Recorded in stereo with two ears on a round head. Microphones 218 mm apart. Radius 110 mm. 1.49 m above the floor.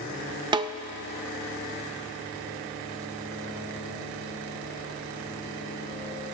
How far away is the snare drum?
About 0.5 m.